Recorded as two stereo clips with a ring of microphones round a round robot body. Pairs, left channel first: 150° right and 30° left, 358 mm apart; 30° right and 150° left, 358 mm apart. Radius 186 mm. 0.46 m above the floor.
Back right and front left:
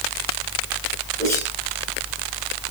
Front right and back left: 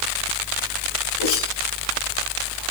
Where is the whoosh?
65° right, 7.5 m.